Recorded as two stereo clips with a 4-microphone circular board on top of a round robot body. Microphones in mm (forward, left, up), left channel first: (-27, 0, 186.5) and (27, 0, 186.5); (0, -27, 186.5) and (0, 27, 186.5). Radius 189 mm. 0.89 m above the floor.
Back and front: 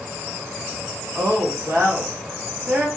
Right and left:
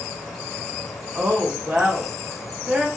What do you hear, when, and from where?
1.1 s a woman speaking: 40° left, 1.8 m